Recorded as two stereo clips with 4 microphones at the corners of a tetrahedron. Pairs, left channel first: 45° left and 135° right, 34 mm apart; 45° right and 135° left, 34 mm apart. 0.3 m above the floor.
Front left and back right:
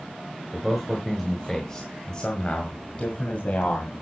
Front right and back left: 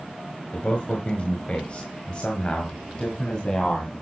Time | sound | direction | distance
0.5 | a man speaking | 50° right | 1.6 m